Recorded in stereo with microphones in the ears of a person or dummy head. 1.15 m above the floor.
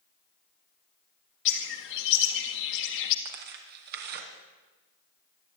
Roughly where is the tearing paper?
Right.